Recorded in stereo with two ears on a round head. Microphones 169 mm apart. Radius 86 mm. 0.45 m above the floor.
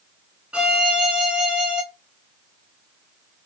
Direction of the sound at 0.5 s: 5° right (ahead or behind).